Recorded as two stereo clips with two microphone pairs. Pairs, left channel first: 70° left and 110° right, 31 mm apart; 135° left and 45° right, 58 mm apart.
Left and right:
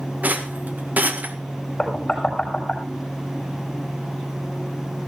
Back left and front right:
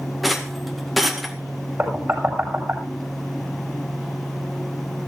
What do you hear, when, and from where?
0.2 s a rattle: 135° right, 1.9 m
1.8 s knocking: 5° left, 7 m